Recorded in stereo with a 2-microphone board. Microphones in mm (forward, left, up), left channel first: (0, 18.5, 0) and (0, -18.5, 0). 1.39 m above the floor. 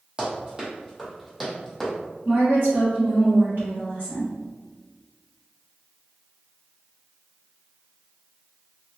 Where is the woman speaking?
70° right (ahead or behind), 1.1 m.